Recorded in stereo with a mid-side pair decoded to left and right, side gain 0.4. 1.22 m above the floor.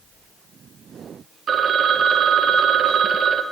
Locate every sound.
1.5 s a phone ringing: 55° right, 0.6 m